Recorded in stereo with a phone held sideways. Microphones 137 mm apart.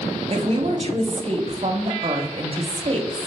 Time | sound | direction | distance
0.3 | a woman speaking | 40° right (ahead or behind) | 0.5 m